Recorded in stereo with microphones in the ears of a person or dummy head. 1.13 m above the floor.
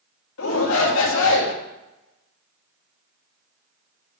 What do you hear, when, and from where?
0.4 s a shout: 75° left (ahead or behind), 2 m